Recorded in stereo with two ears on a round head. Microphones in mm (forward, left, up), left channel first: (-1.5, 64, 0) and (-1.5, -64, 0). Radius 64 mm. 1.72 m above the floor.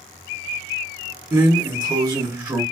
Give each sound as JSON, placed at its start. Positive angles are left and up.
{"t": 1.3, "sound": "a drawer", "side_deg": -20, "distance_m": 1.7}